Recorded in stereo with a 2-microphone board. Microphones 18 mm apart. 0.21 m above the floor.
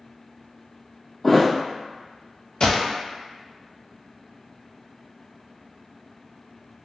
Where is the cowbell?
No cowbell in this recording.